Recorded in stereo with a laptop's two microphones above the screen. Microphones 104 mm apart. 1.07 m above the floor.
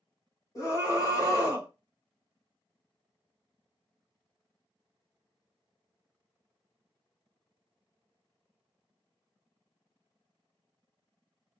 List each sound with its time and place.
0.6 s a scream: 35° left (ahead or behind), 1.5 m